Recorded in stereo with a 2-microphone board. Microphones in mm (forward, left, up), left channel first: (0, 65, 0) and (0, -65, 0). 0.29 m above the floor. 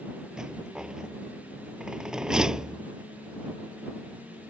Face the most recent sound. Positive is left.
turn(degrees=-5)  # may be behind; listen again after turning